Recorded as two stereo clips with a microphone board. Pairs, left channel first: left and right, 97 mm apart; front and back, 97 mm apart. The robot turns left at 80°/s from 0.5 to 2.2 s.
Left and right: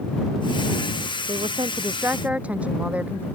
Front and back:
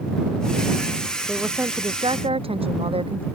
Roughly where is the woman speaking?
Right.